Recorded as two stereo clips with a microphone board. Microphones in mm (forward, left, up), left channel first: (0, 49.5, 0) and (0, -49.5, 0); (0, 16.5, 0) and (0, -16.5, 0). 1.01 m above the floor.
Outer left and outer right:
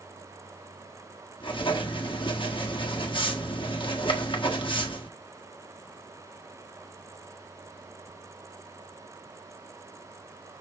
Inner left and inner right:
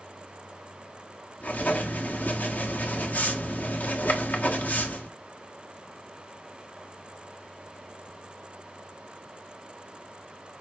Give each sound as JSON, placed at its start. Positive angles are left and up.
{"t": 1.4, "sound": "writing", "side_deg": 55, "distance_m": 1.4}